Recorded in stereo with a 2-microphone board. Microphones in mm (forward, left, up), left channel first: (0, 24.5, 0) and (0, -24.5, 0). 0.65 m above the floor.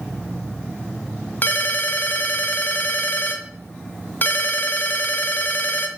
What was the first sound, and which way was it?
A ringtone, 40° left (ahead or behind).